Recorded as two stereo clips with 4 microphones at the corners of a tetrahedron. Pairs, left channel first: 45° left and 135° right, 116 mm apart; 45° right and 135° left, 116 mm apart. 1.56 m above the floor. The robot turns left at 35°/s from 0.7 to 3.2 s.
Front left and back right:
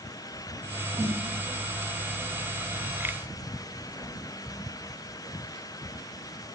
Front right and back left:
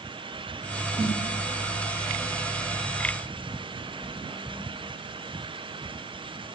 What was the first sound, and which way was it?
A snare drum, 170° left.